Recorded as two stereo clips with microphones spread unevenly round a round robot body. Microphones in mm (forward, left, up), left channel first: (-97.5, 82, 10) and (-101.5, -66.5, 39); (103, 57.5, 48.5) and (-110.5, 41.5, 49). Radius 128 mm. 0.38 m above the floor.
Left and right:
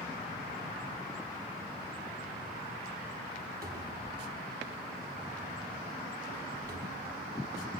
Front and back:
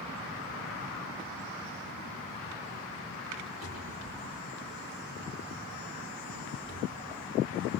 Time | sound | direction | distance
3.6 | a cupboard door | 115° right | 7 m